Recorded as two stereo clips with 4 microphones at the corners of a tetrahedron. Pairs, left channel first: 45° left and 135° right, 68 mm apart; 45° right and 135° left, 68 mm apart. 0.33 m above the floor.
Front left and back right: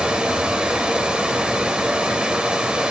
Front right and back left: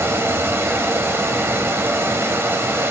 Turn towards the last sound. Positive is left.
turn(degrees=160)